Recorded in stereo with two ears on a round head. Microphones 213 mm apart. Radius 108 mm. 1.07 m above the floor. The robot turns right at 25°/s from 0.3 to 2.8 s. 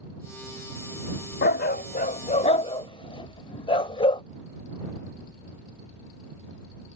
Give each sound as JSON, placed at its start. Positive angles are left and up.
{"t": 1.4, "sound": "a dog barking", "side_deg": 45}